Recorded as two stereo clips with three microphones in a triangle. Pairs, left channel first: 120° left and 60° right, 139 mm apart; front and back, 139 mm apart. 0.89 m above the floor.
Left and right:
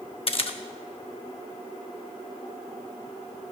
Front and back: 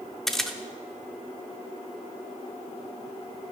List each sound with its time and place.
0.3 s a camera shutter: 90° left, 0.6 m